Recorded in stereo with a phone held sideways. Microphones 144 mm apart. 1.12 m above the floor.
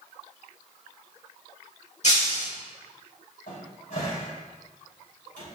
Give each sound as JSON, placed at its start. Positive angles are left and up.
{"t": 2.0, "sound": "breaking glass", "side_deg": 55, "distance_m": 1.9}
{"t": 3.5, "sound": "a cupboard door", "side_deg": 75, "distance_m": 3.0}